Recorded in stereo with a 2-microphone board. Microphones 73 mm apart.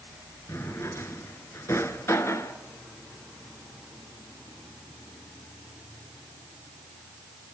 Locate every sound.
0.5 s a drawer: 40° left (ahead or behind), 1.7 m